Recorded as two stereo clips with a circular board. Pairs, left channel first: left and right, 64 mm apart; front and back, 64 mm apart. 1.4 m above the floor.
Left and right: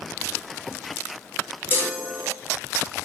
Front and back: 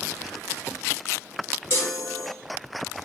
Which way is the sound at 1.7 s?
40° left.